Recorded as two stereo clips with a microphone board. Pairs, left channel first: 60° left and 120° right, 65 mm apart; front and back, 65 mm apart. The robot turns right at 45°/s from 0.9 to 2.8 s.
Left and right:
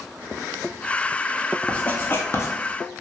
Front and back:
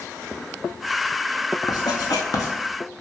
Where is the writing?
15° right, 0.5 m; by 2.5 s 25° left, 0.5 m.